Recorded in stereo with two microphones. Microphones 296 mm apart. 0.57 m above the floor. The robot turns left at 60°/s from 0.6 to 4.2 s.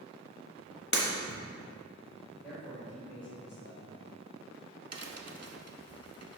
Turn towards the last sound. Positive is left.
turn(degrees=-55)  # may be behind; listen again after turning